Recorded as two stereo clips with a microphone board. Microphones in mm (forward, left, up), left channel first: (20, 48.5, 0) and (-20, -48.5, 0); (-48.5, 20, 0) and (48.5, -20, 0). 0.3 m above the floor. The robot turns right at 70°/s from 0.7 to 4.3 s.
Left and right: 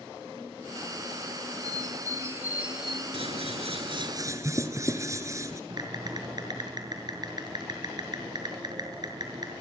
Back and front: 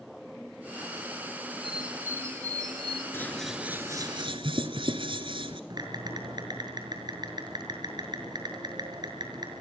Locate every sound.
1.6 s a bird: 110° right, 1.1 m; by 3.0 s 10° right, 1.1 m
3.1 s scissors: 135° right, 1.9 m; by 5.6 s 55° right, 1.9 m
5.7 s typing on a keyboard: 65° right, 6 m